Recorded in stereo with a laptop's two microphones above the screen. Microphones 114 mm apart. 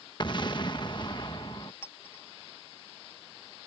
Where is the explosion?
45° left (ahead or behind).